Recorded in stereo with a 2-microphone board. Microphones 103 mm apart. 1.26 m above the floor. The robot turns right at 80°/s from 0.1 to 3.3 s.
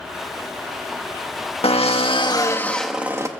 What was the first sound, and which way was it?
A drill, 80° left.